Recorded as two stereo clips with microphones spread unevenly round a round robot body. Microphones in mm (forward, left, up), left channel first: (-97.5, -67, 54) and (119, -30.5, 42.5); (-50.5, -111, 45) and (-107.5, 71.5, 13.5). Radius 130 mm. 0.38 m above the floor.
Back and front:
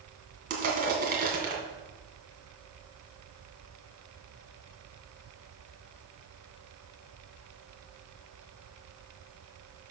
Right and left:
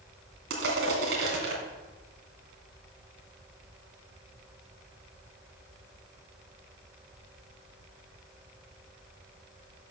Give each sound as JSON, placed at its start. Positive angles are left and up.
{"t": 0.5, "sound": "crushing", "azimuth_deg": 65, "distance_m": 2.0}